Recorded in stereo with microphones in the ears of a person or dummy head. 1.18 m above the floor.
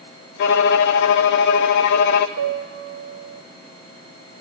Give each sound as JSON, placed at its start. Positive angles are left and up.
{"t": 0.4, "sound": "a violin", "side_deg": 65, "distance_m": 0.7}
{"t": 2.4, "sound": "a piano", "side_deg": -85, "distance_m": 1.5}